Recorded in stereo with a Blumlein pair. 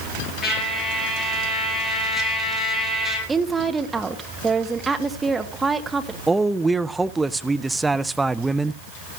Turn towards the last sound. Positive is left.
turn(degrees=-10)